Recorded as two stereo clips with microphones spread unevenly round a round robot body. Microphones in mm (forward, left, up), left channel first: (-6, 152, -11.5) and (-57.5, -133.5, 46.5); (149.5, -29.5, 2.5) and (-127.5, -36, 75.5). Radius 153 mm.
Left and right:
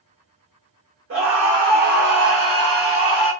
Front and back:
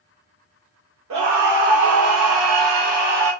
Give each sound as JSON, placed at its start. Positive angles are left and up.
{"t": 1.1, "sound": "a scream", "azimuth_deg": -150, "distance_m": 1.2}